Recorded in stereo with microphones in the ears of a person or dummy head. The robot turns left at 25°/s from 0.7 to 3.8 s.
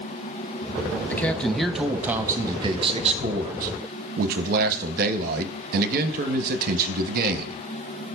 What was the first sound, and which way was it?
A man speaking, 15° left.